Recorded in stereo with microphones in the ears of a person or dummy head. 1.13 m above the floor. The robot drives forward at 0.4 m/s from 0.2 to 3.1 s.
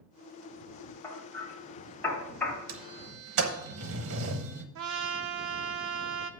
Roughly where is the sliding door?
Right.